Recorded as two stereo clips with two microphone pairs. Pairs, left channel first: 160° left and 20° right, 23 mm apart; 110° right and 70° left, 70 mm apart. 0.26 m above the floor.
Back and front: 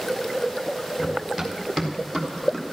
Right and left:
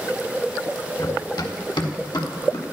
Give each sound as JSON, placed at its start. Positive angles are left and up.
{"t": 1.0, "sound": "running footsteps", "azimuth_deg": -95, "distance_m": 2.5}